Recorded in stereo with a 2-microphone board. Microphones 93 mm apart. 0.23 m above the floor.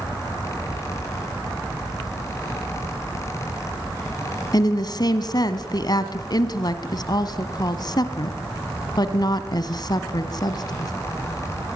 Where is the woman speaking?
50° left (ahead or behind), 1.9 m.